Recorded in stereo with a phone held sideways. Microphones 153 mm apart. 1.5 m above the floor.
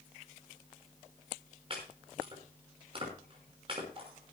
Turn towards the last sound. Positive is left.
turn(degrees=-40)  # may be behind; listen again after turning